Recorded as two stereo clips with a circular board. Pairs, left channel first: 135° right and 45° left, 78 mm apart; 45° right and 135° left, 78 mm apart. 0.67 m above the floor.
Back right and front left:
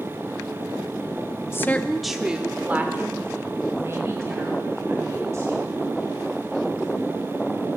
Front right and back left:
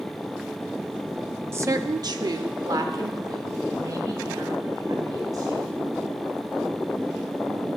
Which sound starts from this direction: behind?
A woman speaking, at 1.5 s.